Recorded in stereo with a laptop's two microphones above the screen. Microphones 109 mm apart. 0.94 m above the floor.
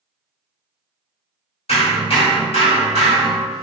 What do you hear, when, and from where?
1.7 s hammering: 65° left (ahead or behind), 1.6 m